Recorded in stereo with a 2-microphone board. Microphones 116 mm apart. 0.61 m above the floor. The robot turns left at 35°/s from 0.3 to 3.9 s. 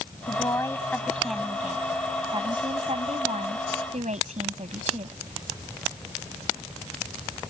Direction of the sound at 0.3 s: 35° left.